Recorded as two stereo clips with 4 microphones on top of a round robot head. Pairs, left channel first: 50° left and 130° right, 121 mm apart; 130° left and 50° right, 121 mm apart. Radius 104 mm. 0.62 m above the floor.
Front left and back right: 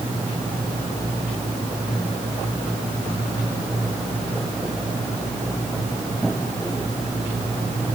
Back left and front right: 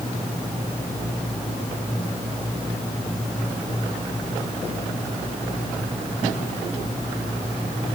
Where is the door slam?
I don't hear a door slam.